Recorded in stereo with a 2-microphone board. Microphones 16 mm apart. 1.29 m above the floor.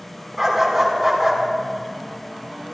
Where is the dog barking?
15° right (ahead or behind), 4.5 m; by 1.4 s 10° right (ahead or behind), 4 m.